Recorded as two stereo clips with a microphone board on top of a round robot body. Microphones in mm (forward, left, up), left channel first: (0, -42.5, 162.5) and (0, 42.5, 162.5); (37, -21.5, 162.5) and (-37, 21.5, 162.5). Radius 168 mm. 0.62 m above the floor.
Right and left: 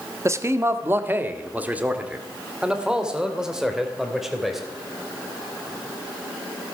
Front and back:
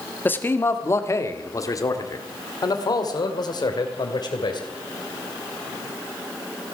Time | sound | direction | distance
0.2 | a man speaking | 35° left | 1.5 m